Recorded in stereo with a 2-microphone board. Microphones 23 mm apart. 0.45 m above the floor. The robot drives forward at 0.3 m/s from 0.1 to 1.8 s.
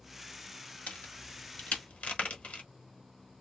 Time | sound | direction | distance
0.9 | a crack | 65° left (ahead or behind) | 1.0 m